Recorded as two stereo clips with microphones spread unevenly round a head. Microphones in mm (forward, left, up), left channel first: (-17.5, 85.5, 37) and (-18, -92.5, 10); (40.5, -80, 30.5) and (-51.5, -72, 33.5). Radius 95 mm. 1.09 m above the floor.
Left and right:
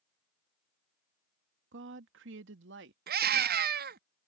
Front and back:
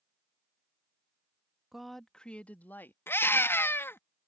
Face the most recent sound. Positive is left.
turn(degrees=-65)